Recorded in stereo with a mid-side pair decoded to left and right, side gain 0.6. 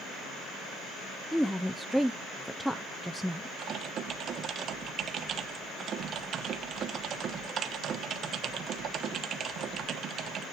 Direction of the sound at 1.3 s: Straight ahead.